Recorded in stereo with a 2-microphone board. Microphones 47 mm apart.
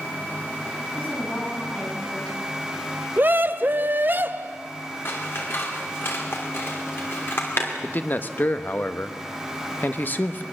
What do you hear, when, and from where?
1.0 s a woman speaking: 30° left (ahead or behind), 8 m
3.2 s a scream: 45° right (ahead or behind), 0.8 m
5.0 s scissors: 55° left (ahead or behind), 3 m
7.8 s a man speaking: 45° left (ahead or behind), 1.2 m